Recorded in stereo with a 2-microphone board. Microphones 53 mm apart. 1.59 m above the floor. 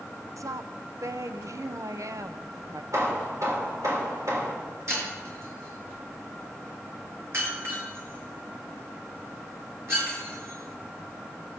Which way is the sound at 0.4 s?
75° right (ahead or behind).